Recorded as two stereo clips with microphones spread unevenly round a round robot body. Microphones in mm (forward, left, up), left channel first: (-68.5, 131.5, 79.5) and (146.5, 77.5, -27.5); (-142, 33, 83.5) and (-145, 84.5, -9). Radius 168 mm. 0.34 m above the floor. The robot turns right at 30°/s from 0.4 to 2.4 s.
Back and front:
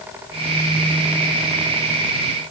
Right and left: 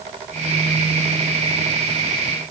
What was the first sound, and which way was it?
Only background noise.